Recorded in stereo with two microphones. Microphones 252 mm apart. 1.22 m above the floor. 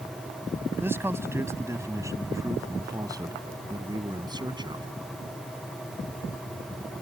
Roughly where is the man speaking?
Centre.